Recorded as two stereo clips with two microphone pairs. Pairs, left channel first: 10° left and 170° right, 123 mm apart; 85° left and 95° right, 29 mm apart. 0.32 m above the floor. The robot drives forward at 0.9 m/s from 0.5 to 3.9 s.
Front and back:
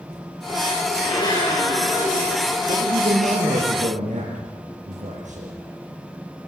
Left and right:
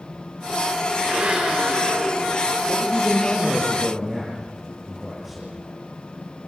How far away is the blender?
About 6.5 m.